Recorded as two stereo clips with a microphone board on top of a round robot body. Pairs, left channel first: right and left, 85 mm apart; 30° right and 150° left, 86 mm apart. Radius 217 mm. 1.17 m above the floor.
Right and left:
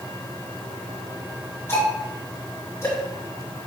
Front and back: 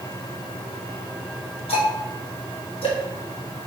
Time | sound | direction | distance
1.7 | ticking | 25° right | 3 m